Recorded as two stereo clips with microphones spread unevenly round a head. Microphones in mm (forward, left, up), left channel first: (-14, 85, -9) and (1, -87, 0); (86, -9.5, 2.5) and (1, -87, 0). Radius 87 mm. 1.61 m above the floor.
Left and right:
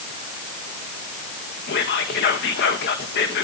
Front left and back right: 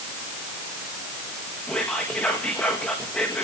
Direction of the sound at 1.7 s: 125° left.